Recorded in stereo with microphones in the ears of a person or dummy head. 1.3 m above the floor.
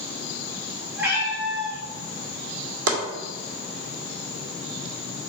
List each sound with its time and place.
1.0 s a cat meowing: 10° right (ahead or behind), 2.5 m
2.9 s chopping: 75° right (ahead or behind), 2 m